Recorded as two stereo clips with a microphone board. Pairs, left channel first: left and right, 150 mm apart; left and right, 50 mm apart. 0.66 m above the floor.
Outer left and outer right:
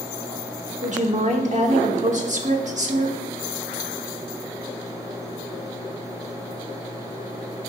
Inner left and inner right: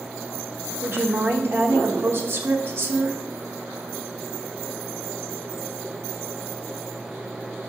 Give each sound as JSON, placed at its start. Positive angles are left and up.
{"t": 0.8, "sound": "a woman speaking", "side_deg": -55, "distance_m": 1.1}